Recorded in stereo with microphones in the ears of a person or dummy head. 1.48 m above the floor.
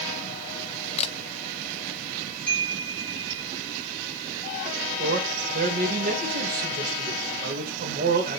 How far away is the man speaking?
About 2.5 m.